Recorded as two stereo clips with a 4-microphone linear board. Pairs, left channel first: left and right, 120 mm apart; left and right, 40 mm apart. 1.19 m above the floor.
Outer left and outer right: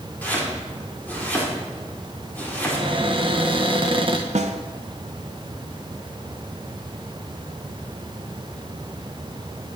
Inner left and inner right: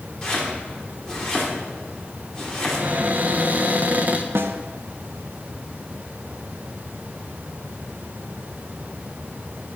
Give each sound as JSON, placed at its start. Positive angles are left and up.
{"t": 0.2, "sound": "chopping", "side_deg": 15, "distance_m": 4.0}
{"t": 2.7, "sound": "a cupboard door", "side_deg": -45, "distance_m": 1.4}
{"t": 4.3, "sound": "a snare drum", "side_deg": -70, "distance_m": 1.1}